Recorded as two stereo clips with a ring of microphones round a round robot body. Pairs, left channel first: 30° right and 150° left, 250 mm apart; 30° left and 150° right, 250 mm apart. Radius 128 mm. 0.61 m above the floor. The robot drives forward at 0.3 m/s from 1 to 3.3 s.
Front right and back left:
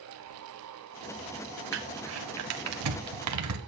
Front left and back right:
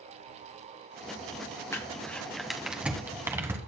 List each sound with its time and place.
1.7 s crumpling: 110° left, 1.2 m; by 3.6 s 130° left, 1.4 m